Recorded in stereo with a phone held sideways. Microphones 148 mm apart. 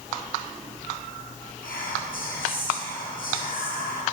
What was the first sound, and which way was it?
Whispering, 80° left.